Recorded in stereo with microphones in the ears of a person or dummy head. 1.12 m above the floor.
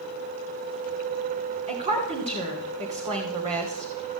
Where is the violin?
No violin in this recording.